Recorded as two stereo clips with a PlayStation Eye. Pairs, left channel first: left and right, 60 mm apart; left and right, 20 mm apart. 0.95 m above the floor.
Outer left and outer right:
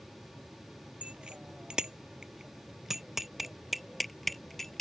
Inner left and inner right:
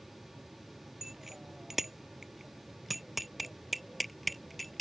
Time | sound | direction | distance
1.0 | a bicycle bell | 15° right (ahead or behind) | ?